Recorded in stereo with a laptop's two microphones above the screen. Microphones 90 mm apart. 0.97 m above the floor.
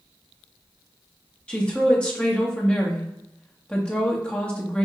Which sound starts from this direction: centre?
A woman speaking, at 1.5 s.